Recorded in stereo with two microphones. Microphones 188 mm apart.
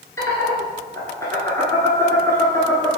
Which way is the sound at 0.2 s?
15° left (ahead or behind).